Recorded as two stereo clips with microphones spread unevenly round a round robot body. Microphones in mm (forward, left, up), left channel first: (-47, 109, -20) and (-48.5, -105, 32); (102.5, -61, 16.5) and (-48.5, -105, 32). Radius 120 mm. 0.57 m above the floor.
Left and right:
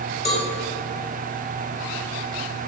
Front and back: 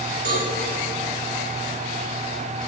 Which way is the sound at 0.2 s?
Straight behind.